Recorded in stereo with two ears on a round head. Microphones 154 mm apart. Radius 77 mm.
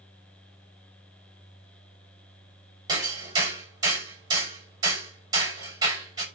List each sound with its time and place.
2.9 s hammering: 20° right (ahead or behind), 7 m